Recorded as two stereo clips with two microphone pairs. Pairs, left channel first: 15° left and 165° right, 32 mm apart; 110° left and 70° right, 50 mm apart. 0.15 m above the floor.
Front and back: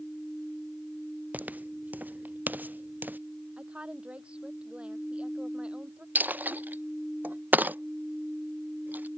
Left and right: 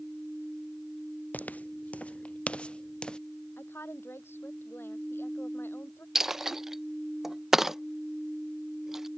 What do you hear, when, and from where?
1.3 s footsteps: 165° left; by 3.2 s 175° right
3.6 s a woman speaking: 145° left
6.2 s a dropped coin: 145° right